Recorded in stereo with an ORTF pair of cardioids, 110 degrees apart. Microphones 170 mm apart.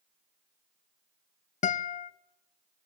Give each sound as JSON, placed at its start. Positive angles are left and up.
{"t": 1.6, "sound": "a guitar", "azimuth_deg": 45, "distance_m": 0.7}